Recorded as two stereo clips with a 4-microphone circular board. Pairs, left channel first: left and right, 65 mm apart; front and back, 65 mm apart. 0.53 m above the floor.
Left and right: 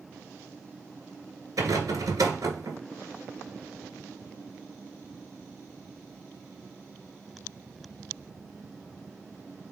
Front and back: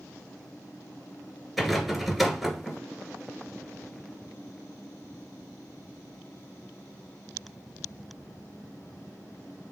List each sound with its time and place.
1.6 s a rattle: 90° right, 1.5 m